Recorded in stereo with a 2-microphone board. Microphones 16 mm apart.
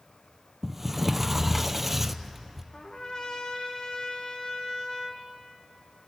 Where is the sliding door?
10° right (ahead or behind), 0.7 m.